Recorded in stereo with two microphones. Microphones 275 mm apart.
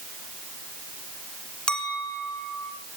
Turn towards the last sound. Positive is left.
turn(degrees=5)  # may be behind; listen again after turning